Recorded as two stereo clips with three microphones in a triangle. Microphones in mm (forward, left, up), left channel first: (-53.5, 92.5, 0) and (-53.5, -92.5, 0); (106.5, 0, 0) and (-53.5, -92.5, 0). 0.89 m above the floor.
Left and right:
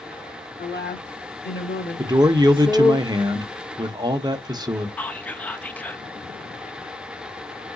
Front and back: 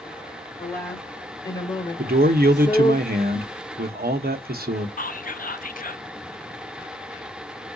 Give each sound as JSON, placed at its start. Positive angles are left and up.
{"t": 0.6, "sound": "a woman speaking", "azimuth_deg": 105, "distance_m": 3.0}
{"t": 2.0, "sound": "a man speaking", "azimuth_deg": -155, "distance_m": 0.7}
{"t": 5.0, "sound": "whispering", "azimuth_deg": 10, "distance_m": 0.6}